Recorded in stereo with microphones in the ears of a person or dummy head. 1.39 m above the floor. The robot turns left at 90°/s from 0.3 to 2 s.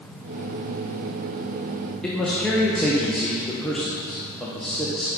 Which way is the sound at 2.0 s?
5° left (ahead or behind).